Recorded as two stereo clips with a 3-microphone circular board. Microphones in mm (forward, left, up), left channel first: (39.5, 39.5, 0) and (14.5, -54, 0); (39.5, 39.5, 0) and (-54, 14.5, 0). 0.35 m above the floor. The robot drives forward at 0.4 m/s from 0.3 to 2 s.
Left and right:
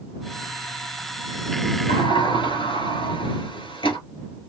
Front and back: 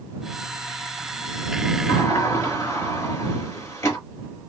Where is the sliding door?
70° left, 1.5 m; by 4.0 s 75° left, 1.5 m.